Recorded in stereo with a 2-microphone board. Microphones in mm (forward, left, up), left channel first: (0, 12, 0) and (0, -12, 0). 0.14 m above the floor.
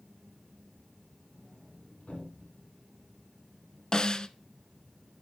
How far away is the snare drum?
About 0.5 m.